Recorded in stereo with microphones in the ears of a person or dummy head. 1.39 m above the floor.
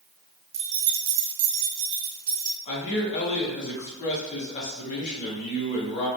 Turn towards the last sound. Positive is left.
turn(degrees=35)  # may be behind; listen again after turning